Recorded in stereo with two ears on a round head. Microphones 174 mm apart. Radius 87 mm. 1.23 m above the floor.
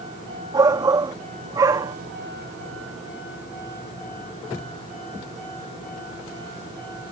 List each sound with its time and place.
0.5 s a shout: 20° right (ahead or behind)